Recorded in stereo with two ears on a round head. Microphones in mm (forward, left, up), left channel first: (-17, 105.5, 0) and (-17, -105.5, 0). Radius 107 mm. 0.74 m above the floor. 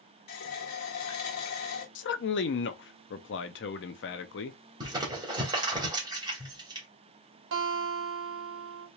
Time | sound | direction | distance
0.3 | a running tap | 75° left (ahead or behind) | 1.3 m
1.9 | a man speaking | 50° left (ahead or behind) | 0.6 m
4.8 | crumpling | 20° right (ahead or behind) | 2.0 m
7.5 | a guitar | 55° right (ahead or behind) | 1.2 m